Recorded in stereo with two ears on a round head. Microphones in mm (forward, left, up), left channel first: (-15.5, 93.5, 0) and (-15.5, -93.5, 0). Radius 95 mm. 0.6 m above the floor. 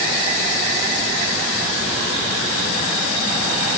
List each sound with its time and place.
Only background noise.